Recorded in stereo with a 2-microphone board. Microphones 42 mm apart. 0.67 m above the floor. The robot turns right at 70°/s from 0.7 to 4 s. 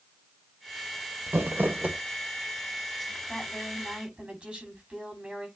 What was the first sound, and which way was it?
Crumpling, 80° right.